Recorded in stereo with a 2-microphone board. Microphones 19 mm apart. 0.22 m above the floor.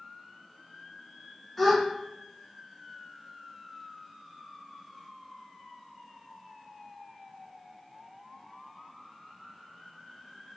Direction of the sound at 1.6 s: 15° left (ahead or behind).